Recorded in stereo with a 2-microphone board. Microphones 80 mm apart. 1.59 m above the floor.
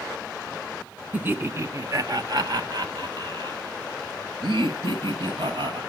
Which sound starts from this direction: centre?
Laughter, at 1.1 s.